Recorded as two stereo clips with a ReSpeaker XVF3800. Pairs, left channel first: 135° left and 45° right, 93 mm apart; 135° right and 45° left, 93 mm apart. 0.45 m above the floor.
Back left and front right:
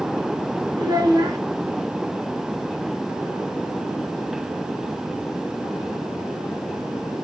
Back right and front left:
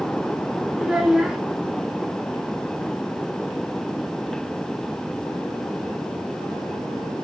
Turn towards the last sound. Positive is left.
turn(degrees=-35)